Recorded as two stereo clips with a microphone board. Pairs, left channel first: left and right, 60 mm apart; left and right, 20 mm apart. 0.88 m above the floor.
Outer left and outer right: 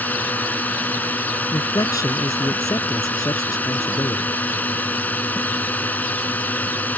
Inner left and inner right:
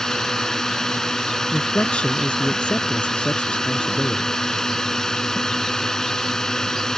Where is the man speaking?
80° left.